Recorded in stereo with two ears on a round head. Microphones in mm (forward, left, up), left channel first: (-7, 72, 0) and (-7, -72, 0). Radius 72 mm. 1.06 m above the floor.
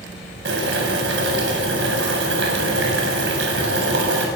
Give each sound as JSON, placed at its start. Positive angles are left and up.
{"t": 0.5, "sound": "boiling", "side_deg": -80, "distance_m": 8.0}